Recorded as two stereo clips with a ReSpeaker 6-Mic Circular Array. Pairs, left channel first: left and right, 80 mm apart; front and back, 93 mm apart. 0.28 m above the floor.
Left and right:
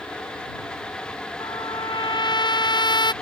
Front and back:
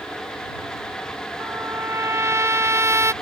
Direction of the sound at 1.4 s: 120° left.